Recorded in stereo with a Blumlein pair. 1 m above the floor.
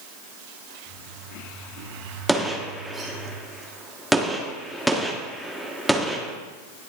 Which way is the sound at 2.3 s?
Straight ahead.